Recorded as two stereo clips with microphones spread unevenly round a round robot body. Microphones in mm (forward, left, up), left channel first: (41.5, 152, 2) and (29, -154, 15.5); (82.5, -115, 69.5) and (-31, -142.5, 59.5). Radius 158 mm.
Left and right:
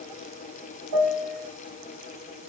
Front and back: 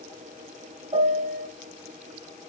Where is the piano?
125° right, 1.5 m.